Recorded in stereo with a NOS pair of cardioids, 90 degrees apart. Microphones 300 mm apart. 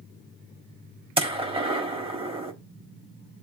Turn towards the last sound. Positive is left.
turn(degrees=-20)